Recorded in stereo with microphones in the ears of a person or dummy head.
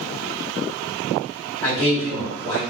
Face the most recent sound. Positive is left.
turn(degrees=15)  # may be behind; listen again after turning